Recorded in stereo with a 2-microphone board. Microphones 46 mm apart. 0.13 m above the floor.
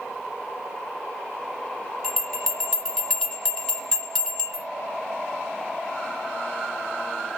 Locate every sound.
2.0 s a bell: 10° left (ahead or behind), 1.5 m